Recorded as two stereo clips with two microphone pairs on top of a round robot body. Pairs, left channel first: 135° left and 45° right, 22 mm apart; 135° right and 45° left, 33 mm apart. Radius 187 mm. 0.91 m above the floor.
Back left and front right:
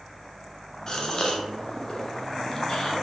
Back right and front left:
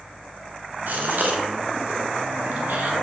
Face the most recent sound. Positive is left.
turn(degrees=70)